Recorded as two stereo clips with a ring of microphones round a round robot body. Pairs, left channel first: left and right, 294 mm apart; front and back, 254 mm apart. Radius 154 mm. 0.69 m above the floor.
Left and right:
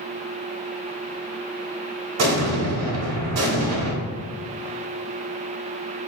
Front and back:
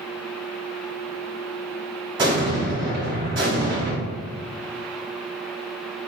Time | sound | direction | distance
2.2 | an explosion | 110° right | 1.2 m